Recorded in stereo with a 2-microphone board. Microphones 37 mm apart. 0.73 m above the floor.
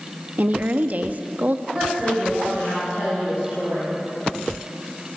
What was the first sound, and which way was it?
A woman speaking, 45° right (ahead or behind).